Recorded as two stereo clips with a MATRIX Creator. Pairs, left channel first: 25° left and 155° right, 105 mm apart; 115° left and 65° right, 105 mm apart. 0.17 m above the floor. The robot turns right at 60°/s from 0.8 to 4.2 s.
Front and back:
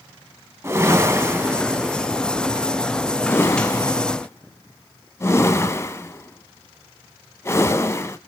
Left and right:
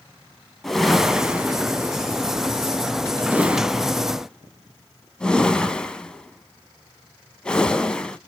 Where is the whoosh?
160° right, 0.5 m; by 8.2 s 40° left, 0.5 m.